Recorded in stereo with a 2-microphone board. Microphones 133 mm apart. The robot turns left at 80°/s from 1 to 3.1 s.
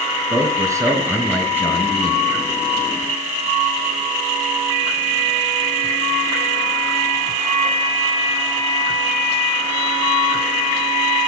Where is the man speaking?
150° right, 2.5 m; by 2.2 s 110° left, 2.5 m.